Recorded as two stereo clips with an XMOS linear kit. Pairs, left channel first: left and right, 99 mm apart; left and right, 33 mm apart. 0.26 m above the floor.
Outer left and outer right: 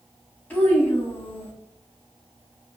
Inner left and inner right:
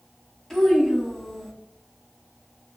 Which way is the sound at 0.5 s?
15° left (ahead or behind).